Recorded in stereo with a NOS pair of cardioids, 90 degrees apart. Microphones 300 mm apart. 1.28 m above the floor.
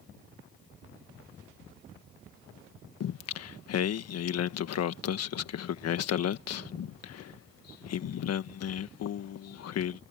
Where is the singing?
60° left.